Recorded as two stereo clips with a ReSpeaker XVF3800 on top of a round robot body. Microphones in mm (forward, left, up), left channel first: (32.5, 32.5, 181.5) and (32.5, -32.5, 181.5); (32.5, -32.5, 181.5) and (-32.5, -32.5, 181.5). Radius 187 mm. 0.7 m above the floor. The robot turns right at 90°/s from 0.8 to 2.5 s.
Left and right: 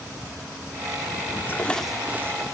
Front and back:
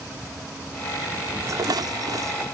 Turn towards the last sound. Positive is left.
turn(degrees=-125)